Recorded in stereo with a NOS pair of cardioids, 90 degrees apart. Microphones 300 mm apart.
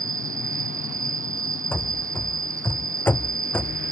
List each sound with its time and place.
0.0 s an insect: 25° right
1.7 s running footsteps: 5° left